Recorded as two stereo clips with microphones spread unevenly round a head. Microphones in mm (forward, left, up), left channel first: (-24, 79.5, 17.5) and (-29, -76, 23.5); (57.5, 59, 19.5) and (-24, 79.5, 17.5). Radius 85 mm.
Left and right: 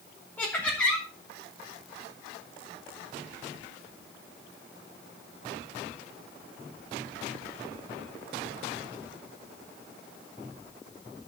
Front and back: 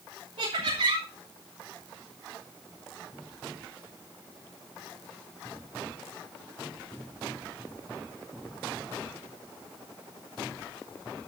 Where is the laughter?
170° left, 3.5 m.